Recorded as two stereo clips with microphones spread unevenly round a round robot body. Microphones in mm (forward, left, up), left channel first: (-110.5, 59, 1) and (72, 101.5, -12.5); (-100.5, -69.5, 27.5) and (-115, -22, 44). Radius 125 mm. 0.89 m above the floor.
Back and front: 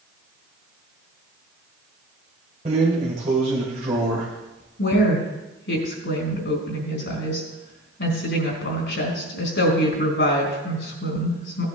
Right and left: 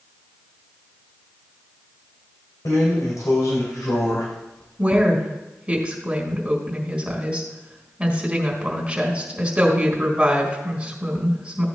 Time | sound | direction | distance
2.6 | a drawer | 50° right | 3 m
4.8 | a woman speaking | 175° left | 4.5 m